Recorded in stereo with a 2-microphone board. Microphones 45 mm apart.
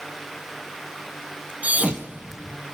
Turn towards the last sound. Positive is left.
turn(degrees=-30)  # may be behind; listen again after turning